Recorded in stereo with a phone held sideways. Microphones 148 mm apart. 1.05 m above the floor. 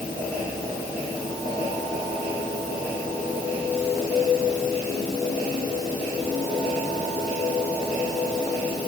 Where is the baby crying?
No baby crying in this recording.